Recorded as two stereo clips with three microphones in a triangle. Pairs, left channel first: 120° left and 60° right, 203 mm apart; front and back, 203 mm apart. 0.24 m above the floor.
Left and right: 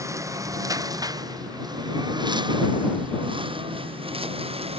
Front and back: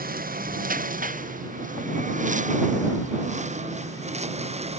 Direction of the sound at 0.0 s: 135° right.